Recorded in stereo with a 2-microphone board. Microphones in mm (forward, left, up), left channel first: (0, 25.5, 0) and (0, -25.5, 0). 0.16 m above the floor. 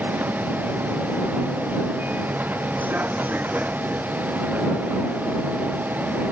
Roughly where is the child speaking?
I don't hear a child speaking.